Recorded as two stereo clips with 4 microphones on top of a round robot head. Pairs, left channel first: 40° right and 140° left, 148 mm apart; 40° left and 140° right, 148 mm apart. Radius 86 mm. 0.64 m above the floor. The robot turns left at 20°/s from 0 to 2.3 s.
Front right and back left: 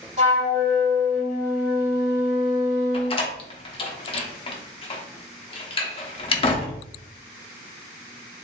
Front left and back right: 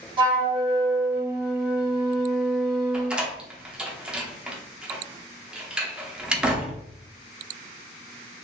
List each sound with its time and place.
0.2 s a flute: 165° left, 1.4 m; by 3.2 s 125° left, 1.4 m
2.9 s a door slam: 60° right, 0.6 m